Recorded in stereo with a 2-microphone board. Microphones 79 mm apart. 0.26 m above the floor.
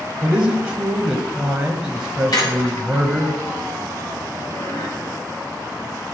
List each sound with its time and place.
0.2 s a man speaking: 10° right (ahead or behind), 1.2 m
2.3 s a squeak: 50° left (ahead or behind), 4 m